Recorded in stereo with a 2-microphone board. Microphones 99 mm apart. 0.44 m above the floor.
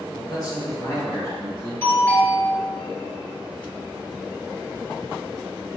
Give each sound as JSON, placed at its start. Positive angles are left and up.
{"t": 0.1, "sound": "a man speaking", "side_deg": 45, "distance_m": 1.8}
{"t": 1.8, "sound": "a doorbell", "side_deg": 25, "distance_m": 1.8}